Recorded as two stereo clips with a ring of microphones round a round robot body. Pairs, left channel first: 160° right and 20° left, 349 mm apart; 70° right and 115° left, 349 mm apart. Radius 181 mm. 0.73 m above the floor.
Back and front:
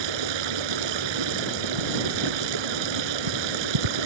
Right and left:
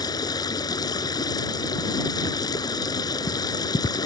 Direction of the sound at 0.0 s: 10° left.